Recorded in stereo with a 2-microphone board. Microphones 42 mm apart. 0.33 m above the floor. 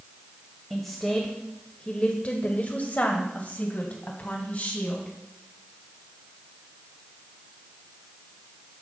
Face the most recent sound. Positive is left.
turn(degrees=35)  # may be behind; listen again after turning